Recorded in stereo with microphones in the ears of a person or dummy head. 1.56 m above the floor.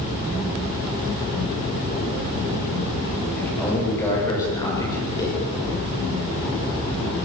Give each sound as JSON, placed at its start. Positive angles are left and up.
{"t": 3.4, "sound": "a man speaking", "side_deg": 20, "distance_m": 8.0}